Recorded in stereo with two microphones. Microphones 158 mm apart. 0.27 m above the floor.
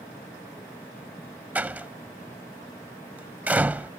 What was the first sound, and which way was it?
A door slam, 10° right (ahead or behind).